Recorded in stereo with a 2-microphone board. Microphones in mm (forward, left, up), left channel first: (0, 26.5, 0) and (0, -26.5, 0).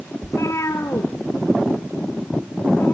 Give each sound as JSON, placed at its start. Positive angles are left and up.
{"t": 0.2, "sound": "a cat meowing", "side_deg": 65, "distance_m": 1.9}